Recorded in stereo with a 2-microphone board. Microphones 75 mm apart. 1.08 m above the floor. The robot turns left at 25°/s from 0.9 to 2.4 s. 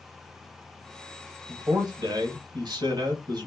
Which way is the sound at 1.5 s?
60° right (ahead or behind).